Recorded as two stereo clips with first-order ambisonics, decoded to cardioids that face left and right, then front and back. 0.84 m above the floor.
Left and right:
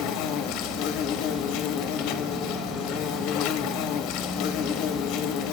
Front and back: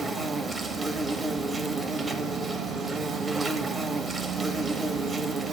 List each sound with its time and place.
0.0 s an insect: 105° left, 1.0 m